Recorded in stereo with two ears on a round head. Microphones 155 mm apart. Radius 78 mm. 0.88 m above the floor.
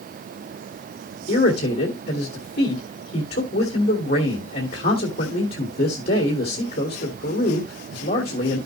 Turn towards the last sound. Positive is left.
turn(degrees=55)  # may be behind; listen again after turning